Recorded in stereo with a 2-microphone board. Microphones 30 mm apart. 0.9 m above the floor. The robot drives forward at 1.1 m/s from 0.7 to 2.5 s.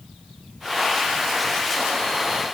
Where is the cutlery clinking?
I don't hear cutlery clinking.